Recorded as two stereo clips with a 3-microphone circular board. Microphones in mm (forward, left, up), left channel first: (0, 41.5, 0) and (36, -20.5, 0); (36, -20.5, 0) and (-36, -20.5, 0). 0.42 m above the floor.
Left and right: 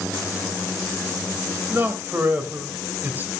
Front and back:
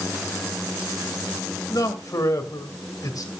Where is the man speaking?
5° right, 2 m.